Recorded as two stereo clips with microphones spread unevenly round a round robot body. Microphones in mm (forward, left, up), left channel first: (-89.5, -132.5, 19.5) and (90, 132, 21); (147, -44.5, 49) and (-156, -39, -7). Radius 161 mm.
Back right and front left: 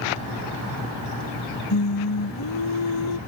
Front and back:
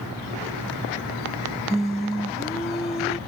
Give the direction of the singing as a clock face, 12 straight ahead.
3 o'clock.